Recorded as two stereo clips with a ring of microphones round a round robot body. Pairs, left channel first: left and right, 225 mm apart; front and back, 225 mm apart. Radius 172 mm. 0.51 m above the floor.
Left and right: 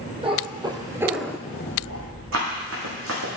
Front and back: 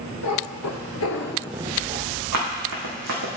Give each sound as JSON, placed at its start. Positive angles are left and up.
{"t": 0.2, "sound": "a cat meowing", "azimuth_deg": -25, "distance_m": 1.7}
{"t": 2.3, "sound": "running footsteps", "azimuth_deg": -145, "distance_m": 1.7}